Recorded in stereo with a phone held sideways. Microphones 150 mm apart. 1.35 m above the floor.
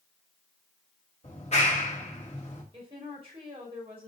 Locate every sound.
1.2 s a clap: 50° left (ahead or behind), 3.5 m
2.7 s a woman speaking: 40° right (ahead or behind), 5 m